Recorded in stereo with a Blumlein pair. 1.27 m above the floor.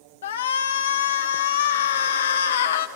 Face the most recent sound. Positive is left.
turn(degrees=60)